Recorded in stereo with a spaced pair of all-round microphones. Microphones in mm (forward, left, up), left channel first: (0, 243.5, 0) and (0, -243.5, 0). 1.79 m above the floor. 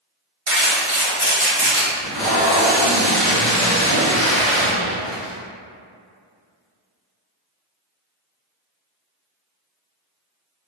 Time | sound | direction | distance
0.5 | crumpling | 80° right | 1.7 m
1.9 | tape being pulled | centre (ahead or behind) | 1.3 m